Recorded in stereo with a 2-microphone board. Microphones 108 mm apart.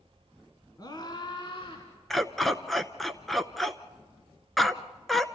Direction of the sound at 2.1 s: Centre (ahead or behind).